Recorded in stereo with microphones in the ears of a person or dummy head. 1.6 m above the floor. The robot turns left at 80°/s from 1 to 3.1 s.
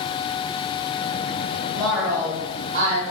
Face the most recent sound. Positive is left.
turn(degrees=-95)